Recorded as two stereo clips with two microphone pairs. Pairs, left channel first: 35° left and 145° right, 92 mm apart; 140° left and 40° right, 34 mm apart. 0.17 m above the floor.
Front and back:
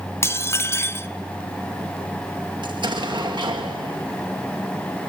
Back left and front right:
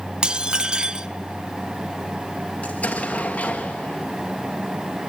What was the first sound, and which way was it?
Dishes clattering, straight ahead.